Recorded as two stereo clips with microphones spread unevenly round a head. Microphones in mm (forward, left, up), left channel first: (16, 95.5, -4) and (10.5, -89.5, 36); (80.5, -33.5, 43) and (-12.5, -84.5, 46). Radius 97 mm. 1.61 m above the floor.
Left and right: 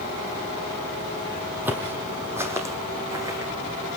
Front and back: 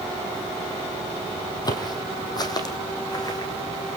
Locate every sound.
1.6 s footsteps: 20° right, 3 m; by 3.5 s 25° right, 5.5 m